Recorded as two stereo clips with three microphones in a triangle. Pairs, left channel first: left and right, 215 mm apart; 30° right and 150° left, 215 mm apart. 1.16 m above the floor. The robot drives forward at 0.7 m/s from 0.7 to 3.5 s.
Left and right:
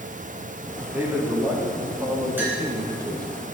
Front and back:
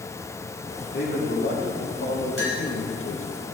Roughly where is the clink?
Ahead.